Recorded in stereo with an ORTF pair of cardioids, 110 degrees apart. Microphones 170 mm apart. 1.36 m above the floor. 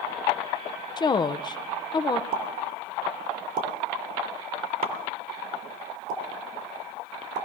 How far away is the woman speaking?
About 0.6 m.